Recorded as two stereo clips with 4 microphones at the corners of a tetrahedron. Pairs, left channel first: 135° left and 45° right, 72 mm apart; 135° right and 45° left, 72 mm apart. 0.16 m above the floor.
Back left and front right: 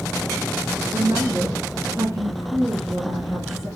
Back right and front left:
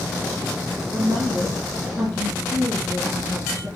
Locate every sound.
0.9 s a woman speaking: straight ahead, 4.5 m